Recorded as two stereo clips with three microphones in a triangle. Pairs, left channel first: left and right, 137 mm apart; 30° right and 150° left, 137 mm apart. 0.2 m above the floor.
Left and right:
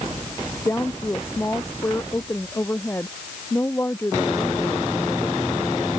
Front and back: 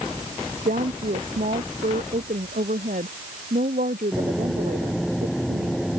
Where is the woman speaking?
165° left.